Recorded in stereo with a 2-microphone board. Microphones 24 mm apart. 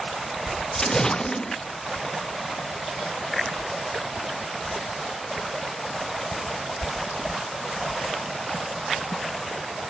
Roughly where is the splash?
Left.